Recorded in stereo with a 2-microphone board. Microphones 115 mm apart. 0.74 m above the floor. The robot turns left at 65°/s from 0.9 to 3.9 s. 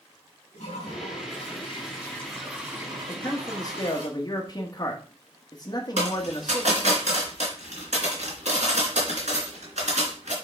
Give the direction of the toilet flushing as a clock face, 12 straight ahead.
9 o'clock.